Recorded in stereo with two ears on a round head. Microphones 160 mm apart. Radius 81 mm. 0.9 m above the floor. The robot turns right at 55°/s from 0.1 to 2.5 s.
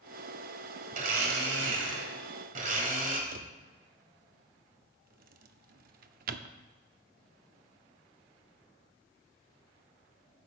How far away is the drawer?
About 0.6 m.